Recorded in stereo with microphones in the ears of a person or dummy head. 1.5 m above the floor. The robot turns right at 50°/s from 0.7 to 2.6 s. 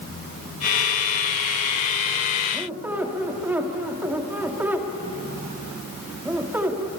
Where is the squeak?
5° right (ahead or behind), 1.8 m; by 6.9 s 10° right (ahead or behind), 1.8 m.